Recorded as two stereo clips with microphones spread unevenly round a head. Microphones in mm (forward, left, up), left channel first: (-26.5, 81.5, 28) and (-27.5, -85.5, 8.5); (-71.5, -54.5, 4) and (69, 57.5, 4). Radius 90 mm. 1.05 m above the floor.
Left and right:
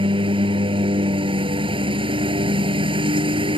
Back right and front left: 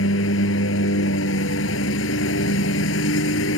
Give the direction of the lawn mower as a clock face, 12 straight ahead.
5 o'clock.